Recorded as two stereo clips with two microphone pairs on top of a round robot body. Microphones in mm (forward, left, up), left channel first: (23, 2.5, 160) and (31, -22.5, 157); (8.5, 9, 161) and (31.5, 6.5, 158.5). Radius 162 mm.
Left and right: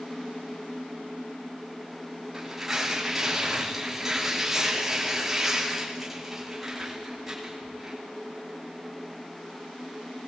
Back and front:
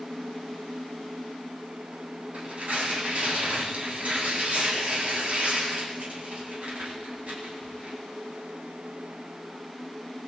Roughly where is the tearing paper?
Ahead.